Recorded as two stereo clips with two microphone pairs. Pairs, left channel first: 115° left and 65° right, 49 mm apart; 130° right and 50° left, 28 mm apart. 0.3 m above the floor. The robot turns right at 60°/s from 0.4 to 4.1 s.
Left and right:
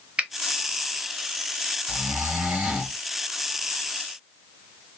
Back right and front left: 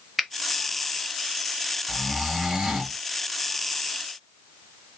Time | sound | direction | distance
0.2 | a finger snap | 30° right | 0.7 m
1.9 | snoring | 45° right | 2 m